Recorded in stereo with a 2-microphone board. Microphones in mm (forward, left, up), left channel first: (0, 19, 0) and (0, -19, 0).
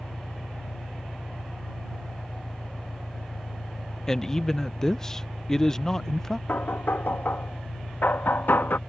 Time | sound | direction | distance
0.0 | an engine running | 85° left | ?
4.1 | a man speaking | 15° left (ahead or behind) | ?
6.5 | knocking | 60° left (ahead or behind) | ?